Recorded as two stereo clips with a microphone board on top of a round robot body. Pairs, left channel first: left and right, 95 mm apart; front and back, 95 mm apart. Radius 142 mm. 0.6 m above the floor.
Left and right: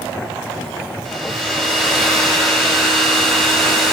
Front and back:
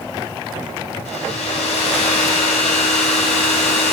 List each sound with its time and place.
1.1 s a hair dryer: 5° left, 0.8 m